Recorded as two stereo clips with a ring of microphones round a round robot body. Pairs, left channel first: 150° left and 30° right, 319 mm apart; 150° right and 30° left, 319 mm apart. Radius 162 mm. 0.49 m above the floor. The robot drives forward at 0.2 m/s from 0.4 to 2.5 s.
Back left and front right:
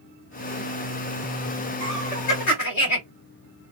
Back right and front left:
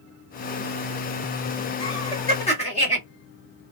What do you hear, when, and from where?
1.8 s laughter: 140° left, 1.7 m